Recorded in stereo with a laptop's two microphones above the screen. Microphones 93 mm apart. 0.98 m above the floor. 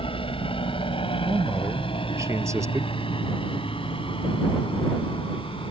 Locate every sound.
0.0 s a helicopter: 70° left (ahead or behind)
1.2 s a man speaking: 30° right (ahead or behind)